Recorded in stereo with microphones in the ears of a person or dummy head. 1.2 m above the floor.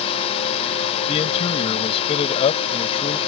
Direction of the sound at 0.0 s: 35° left (ahead or behind).